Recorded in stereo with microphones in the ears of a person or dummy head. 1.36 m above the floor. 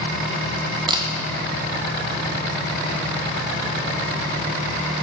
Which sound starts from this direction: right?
A camera shutter, at 0.9 s.